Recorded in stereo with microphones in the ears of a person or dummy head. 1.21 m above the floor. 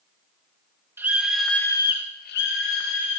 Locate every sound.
1.0 s a scream: 10° right (ahead or behind), 2 m; by 3.2 s 75° left (ahead or behind), 2 m